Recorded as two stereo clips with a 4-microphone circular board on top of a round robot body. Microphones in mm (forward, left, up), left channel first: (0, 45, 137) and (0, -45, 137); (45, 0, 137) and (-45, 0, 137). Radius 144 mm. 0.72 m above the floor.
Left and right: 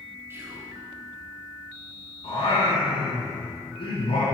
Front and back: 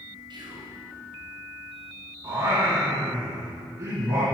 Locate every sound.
0.3 s whispering: 155° right, 2.5 m
2.2 s singing: 120° left, 1.4 m